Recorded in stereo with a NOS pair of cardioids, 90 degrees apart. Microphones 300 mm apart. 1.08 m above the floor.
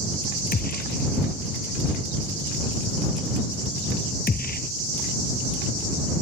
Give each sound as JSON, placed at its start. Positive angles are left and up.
{"t": 0.5, "sound": "a gunshot", "azimuth_deg": 30}